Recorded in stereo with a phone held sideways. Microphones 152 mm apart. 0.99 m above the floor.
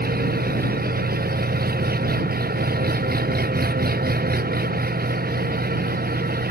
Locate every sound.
0.0 s an engine running: 85° right